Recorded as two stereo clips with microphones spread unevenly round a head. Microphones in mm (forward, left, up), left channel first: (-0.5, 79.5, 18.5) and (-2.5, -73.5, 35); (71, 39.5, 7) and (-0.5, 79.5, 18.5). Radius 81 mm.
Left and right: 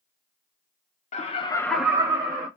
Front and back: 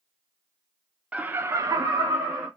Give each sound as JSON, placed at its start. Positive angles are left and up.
{"t": 1.1, "sound": "laughter", "azimuth_deg": 75, "distance_m": 0.7}